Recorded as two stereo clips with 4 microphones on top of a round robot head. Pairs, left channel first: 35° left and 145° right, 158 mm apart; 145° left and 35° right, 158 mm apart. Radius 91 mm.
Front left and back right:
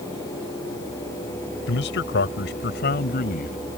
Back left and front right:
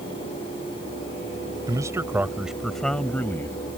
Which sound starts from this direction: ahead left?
A man speaking, at 1.7 s.